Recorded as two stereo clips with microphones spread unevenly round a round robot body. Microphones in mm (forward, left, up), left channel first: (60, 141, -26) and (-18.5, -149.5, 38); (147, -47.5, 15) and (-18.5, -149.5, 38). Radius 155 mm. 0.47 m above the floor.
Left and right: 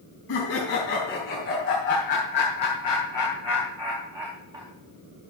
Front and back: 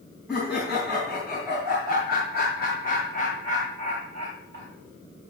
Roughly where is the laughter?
Behind left.